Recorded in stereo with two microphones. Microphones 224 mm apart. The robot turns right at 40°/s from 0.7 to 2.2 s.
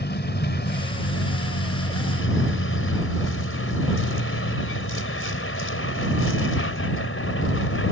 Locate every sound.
0.0 s a vehicle: 50° left; by 7.9 s 110° left